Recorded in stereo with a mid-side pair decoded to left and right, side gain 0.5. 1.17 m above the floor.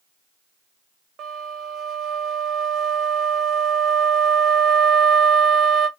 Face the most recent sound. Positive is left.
turn(degrees=-60)